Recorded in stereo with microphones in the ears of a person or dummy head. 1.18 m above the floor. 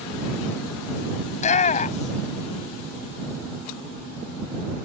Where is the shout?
30° left (ahead or behind).